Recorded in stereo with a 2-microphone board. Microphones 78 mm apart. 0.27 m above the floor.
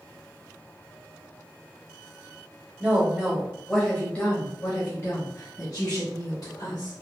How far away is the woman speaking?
About 1.1 m.